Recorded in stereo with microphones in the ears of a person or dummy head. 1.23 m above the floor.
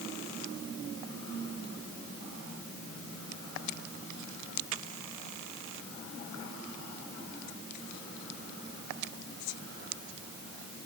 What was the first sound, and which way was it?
Only background noise.